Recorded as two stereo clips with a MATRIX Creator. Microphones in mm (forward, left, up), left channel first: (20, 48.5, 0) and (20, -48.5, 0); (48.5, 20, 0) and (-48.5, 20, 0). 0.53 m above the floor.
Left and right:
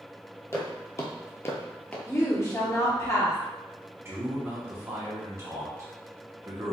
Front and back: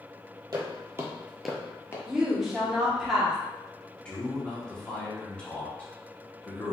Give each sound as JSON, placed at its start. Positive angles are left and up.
{"t": 0.5, "sound": "footsteps", "azimuth_deg": 145, "distance_m": 0.8}
{"t": 2.1, "sound": "a woman speaking", "azimuth_deg": 100, "distance_m": 0.8}
{"t": 4.0, "sound": "a man speaking", "azimuth_deg": -65, "distance_m": 0.8}